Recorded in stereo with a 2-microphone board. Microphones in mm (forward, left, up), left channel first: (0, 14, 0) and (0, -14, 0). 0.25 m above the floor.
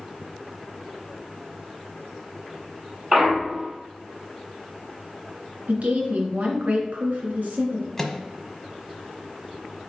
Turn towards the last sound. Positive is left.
turn(degrees=10)  # may be behind; listen again after turning